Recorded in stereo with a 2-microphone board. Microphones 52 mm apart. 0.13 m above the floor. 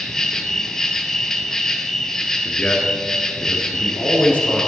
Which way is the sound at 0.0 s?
10° left (ahead or behind).